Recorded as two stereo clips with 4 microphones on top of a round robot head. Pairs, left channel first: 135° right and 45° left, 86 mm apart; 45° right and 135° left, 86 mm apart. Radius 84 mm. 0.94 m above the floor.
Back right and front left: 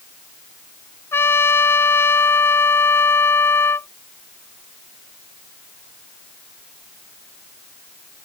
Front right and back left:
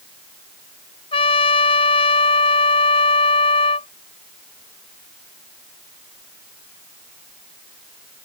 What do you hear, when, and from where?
1.1 s a trumpet: 70° right